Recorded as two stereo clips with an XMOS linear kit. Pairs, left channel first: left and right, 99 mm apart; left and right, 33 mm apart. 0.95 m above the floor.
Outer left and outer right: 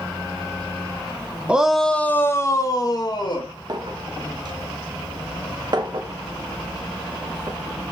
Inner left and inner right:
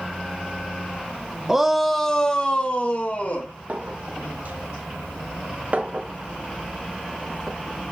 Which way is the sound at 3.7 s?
50° right (ahead or behind).